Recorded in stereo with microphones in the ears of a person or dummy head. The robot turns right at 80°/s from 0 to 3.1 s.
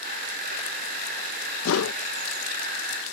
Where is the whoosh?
70° left (ahead or behind); by 2.0 s 80° left.